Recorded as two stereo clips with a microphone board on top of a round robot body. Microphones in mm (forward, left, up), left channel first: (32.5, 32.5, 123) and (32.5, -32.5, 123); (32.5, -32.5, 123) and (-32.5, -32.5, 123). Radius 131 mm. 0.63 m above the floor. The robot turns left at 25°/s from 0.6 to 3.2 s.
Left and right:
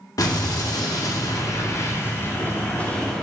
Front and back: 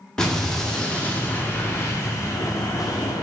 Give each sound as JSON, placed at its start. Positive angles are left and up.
{"t": 0.2, "sound": "an explosion", "azimuth_deg": 80, "distance_m": 2.0}